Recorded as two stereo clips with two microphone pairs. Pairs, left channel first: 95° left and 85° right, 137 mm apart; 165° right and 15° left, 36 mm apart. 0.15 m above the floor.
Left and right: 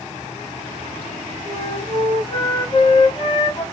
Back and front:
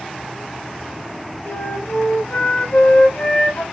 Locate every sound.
1.4 s a flute: 150° left, 5.5 m